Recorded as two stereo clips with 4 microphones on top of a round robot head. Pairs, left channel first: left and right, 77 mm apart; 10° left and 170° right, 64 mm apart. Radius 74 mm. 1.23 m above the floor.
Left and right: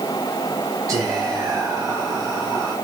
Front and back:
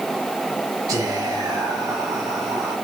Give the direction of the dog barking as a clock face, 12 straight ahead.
I don't hear a dog barking.